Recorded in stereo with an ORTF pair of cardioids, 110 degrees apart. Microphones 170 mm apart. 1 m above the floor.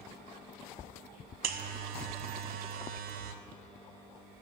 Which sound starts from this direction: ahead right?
A buzzer, at 1.4 s.